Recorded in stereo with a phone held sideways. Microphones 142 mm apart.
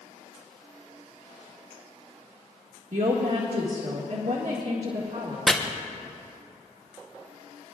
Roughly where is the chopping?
Centre.